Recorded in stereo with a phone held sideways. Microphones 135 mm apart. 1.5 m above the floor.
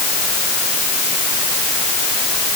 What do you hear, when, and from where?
Only background noise.